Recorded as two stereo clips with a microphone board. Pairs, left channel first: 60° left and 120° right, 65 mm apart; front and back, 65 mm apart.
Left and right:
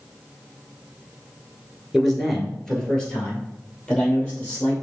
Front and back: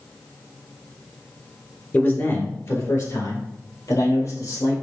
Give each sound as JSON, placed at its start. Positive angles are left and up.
{"t": 1.9, "sound": "a man speaking", "azimuth_deg": -30, "distance_m": 1.2}